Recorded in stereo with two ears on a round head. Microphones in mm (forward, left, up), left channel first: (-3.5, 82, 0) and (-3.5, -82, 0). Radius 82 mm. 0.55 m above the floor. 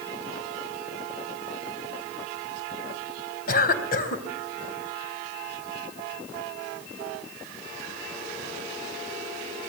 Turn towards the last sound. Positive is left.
turn(degrees=50)  # may be behind; listen again after turning